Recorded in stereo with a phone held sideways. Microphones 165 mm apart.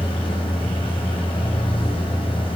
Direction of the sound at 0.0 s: 30° left (ahead or behind).